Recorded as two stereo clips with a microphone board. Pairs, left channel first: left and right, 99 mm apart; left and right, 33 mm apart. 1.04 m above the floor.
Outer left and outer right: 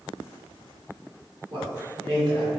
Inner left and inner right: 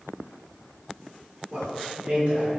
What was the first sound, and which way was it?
A man speaking, 50° right (ahead or behind).